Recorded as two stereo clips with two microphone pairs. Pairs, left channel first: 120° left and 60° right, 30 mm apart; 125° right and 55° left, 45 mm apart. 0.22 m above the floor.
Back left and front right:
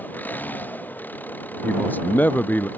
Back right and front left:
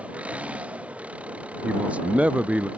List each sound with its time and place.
0.0 s an engine running: 120° left
1.6 s a man speaking: 115° left